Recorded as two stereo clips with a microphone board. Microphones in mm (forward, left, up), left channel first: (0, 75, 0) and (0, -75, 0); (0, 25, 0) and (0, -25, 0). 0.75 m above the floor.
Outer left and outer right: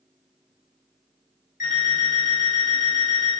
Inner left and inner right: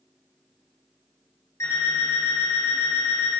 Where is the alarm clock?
70° left (ahead or behind), 1.4 m.